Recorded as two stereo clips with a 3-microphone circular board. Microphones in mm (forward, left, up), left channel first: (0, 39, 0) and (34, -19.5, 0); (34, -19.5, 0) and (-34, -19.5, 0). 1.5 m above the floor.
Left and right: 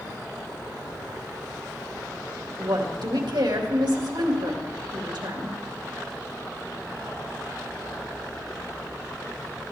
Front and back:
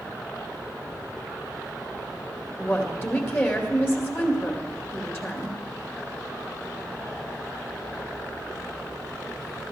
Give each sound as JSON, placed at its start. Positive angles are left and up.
{"t": 2.6, "sound": "a woman speaking", "azimuth_deg": -60, "distance_m": 2.5}